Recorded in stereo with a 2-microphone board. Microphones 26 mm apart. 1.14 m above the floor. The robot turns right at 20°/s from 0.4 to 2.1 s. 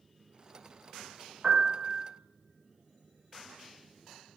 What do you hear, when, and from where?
1.4 s a piano: 40° right (ahead or behind), 0.5 m; by 2.0 s 30° right (ahead or behind), 0.5 m